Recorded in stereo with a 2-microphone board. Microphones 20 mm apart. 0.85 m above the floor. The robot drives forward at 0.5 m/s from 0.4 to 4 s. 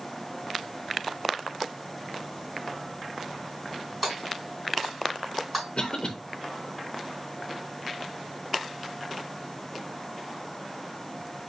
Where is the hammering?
5° right (ahead or behind), 3.5 m.